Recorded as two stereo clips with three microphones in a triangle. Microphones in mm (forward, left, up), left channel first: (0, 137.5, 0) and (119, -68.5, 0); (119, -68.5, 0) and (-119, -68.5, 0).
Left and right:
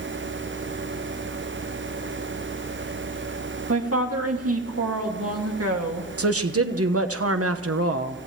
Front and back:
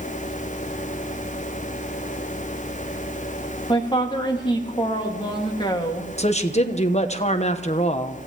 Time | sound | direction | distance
3.7 | a woman speaking | 70° right | 2 m
6.2 | a woman speaking | 65° right | 1.2 m